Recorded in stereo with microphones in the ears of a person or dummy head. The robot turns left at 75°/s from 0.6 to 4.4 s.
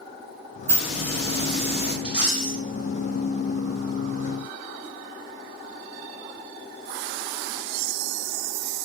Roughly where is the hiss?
Behind.